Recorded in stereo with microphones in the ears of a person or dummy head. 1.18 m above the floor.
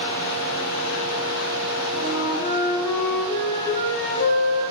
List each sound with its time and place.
1.9 s a flute: 60° left (ahead or behind), 1.3 m